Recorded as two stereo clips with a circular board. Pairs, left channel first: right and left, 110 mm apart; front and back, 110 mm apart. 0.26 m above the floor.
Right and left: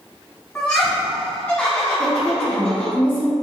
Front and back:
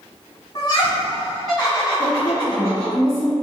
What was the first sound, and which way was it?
Laughter, 30° right.